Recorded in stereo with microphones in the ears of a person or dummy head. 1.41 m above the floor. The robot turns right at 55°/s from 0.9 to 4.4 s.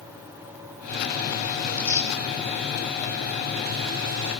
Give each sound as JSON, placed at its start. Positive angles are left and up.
{"t": 1.6, "sound": "tearing paper", "side_deg": 0, "distance_m": 7.5}